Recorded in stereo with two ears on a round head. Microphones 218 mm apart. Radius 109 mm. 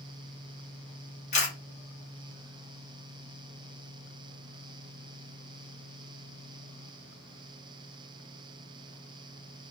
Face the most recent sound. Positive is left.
turn(degrees=30)  # may be behind; listen again after turning